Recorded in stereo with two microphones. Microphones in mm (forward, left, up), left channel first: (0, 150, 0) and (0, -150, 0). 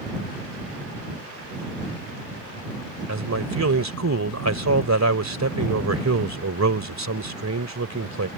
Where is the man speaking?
65° right (ahead or behind).